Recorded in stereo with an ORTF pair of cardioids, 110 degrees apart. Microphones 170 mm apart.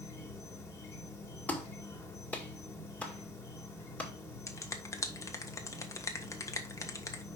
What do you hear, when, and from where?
0.0 s an insect: 15° left, 1.9 m
1.5 s a clap: 10° left, 1.9 m
4.5 s a finger snap: 20° left, 1.3 m